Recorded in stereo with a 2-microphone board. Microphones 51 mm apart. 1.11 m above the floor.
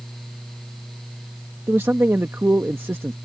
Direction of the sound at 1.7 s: 50° right (ahead or behind).